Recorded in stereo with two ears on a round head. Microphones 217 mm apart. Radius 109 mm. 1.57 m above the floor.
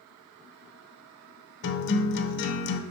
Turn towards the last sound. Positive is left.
turn(degrees=50)  # may be behind; listen again after turning